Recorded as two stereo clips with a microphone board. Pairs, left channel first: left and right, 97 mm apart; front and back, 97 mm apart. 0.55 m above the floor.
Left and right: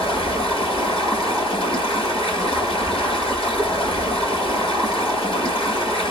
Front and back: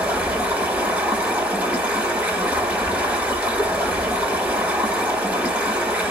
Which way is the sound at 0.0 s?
105° left.